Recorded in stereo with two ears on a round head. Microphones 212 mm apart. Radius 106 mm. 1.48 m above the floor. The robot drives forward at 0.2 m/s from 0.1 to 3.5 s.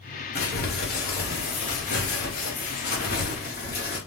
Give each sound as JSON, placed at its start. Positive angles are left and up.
{"t": 0.3, "sound": "crumpling", "side_deg": 40, "distance_m": 1.3}